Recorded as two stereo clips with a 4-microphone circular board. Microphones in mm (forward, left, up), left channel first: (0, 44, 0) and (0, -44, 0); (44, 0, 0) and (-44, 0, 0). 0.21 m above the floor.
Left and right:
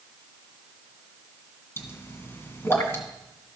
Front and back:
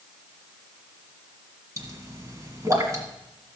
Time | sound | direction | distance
1.8 | a pop | 145° left | 1.8 m